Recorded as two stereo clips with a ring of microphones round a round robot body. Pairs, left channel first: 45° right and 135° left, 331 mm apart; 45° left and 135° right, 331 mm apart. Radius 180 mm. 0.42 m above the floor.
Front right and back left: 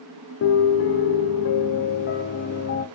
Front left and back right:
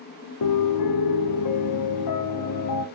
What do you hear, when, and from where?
0.4 s a piano: 10° left, 1.4 m